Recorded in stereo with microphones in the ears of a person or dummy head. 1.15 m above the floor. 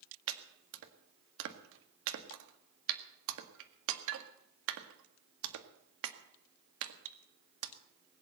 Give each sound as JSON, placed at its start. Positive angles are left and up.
{"t": 0.3, "sound": "chopping", "side_deg": -65, "distance_m": 1.8}